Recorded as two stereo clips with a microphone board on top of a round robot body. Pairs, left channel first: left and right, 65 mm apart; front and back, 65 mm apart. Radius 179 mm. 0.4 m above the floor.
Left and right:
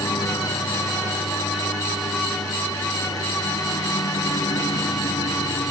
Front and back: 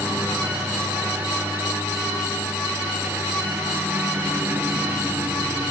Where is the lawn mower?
120° left.